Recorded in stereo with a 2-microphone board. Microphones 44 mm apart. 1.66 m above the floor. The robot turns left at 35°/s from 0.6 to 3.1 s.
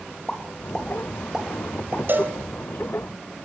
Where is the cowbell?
50° right (ahead or behind), 2.5 m; by 2.4 s 45° right (ahead or behind), 2.5 m.